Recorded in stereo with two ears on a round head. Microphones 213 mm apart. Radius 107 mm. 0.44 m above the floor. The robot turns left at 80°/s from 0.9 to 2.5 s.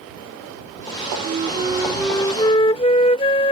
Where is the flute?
120° right; by 3.5 s 140° left.